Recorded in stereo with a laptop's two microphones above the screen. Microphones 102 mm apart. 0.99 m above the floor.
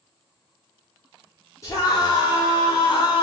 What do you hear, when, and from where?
1.6 s a scream: 30° left (ahead or behind), 3 m; by 3.2 s 50° left (ahead or behind), 3 m